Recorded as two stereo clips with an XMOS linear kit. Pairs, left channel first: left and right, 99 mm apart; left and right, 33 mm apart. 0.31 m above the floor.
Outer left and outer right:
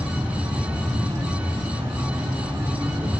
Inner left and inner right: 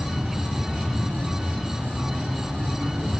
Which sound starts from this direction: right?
An insect, at 0.0 s.